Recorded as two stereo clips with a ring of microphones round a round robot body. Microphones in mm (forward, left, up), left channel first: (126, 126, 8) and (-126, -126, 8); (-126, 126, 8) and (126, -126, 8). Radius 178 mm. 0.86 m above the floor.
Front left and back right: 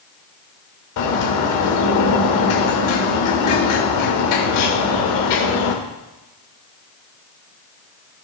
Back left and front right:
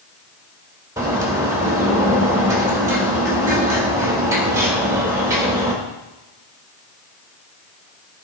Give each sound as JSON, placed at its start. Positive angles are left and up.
{"t": 1.0, "sound": "a bird", "azimuth_deg": 35, "distance_m": 2.0}